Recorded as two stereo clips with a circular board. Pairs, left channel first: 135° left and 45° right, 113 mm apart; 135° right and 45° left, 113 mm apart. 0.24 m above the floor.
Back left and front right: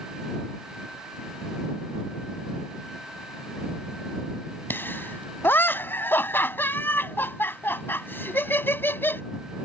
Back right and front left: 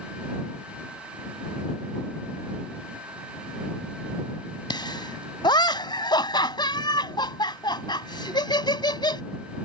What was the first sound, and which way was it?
Laughter, 160° right.